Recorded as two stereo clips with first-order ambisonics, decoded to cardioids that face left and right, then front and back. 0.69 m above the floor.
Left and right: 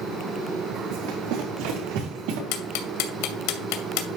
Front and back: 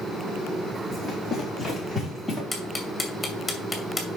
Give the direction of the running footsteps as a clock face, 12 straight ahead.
3 o'clock.